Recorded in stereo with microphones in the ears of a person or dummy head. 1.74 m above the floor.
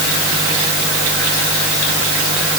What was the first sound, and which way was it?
Only background noise.